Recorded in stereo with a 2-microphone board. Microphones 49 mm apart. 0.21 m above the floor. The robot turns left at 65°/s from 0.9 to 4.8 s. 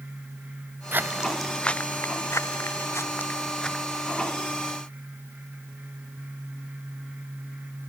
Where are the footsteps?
50° right (ahead or behind); by 3.8 s 5° left (ahead or behind).